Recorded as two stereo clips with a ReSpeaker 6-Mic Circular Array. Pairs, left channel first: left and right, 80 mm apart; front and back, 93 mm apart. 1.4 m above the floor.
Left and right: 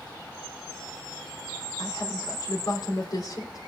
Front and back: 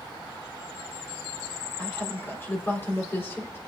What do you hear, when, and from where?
1.8 s a woman speaking: 65° left, 3.5 m